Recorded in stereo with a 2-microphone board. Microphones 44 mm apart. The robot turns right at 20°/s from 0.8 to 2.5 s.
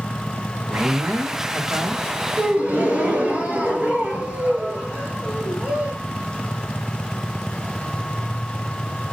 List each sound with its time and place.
0.7 s a man speaking: 55° right (ahead or behind), 2.5 m; by 2.0 s 50° right (ahead or behind), 2.5 m
2.4 s a gasp: 35° right (ahead or behind), 3 m